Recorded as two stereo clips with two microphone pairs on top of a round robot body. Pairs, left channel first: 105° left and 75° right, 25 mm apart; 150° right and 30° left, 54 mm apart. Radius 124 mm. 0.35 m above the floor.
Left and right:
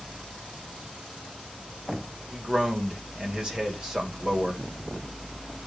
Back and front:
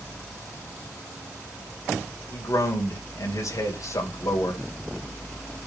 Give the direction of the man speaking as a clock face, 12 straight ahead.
4 o'clock.